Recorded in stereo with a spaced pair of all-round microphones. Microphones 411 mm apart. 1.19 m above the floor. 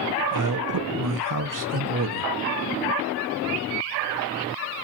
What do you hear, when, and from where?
0.3 s a man speaking: 50° right (ahead or behind), 0.8 m